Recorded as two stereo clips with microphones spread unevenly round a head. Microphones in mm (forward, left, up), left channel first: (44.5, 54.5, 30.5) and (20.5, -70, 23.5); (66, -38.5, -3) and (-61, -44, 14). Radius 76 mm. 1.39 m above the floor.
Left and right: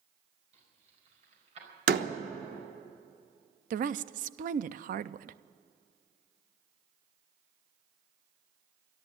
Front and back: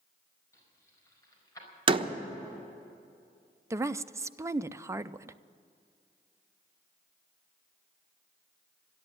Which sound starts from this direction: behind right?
A door slam, at 1.9 s.